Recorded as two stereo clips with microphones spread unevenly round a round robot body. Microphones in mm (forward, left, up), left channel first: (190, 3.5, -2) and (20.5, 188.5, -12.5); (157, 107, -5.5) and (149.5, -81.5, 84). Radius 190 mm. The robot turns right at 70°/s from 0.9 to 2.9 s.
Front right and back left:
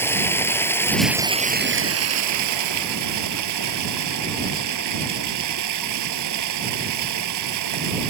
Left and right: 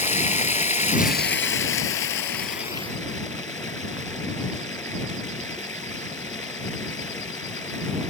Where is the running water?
35° left; by 8.1 s 175° left.